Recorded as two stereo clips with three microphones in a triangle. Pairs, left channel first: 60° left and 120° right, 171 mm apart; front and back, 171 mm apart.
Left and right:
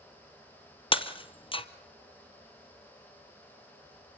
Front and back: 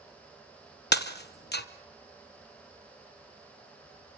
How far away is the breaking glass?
About 1.0 m.